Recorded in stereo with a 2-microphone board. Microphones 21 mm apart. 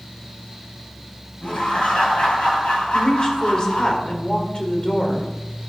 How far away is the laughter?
About 6 m.